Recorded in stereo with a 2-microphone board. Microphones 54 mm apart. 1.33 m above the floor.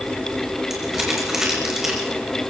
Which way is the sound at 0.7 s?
10° right (ahead or behind).